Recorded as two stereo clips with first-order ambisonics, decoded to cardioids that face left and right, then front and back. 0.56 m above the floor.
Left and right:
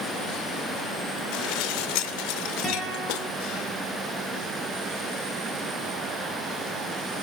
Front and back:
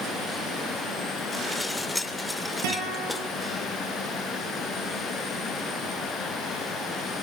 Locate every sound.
1.3 s dishes clattering: 85° left, 1.0 m
2.6 s a guitar: 170° left, 10 m